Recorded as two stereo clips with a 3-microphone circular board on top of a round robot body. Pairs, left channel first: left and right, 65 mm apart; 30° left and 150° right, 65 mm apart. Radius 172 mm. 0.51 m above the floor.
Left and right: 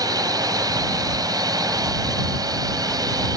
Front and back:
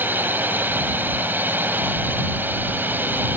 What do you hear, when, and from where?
0.0 s a drone: 90° right